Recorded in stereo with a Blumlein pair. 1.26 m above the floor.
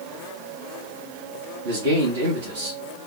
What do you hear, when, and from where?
1.6 s a man speaking: 50° right, 1.1 m